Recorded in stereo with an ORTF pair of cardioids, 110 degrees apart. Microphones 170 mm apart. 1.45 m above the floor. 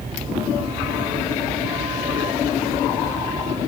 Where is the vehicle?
30° right.